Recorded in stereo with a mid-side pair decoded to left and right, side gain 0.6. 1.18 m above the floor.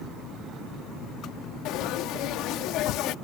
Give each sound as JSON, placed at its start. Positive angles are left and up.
{"t": 1.6, "sound": "frying", "azimuth_deg": 70}